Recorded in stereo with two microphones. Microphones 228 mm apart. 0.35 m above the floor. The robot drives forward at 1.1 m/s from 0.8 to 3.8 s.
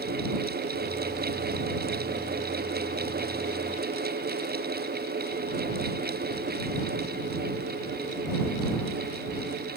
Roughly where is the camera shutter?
No camera shutter in this recording.